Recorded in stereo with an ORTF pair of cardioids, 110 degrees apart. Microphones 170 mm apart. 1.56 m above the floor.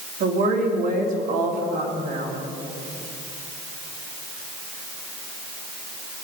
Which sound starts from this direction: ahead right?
A woman speaking, at 0.2 s.